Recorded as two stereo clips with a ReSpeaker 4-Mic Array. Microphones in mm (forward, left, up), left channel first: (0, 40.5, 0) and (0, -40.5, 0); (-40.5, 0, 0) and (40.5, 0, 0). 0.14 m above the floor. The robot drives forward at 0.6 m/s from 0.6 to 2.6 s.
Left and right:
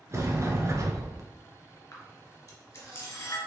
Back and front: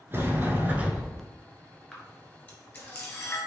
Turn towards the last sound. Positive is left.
turn(degrees=130)